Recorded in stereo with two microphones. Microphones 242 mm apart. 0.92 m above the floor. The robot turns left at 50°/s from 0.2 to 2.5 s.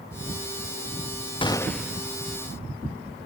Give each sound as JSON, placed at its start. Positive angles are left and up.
{"t": 1.4, "sound": "a gunshot", "azimuth_deg": 20, "distance_m": 0.5}